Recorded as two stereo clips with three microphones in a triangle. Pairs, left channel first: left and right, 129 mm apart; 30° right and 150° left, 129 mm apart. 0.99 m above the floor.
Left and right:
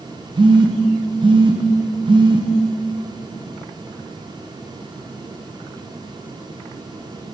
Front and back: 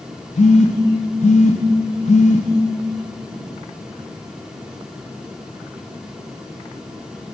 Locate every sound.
0.4 s a phone buzzing: 40° right, 0.7 m